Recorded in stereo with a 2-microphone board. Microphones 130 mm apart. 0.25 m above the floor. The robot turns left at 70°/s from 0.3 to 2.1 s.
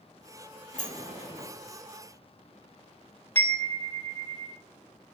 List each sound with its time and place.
0.7 s a sliding door: 70° left (ahead or behind), 4.5 m; by 1.5 s 40° left (ahead or behind), 4.5 m
3.4 s a chime: 15° left (ahead or behind), 1.0 m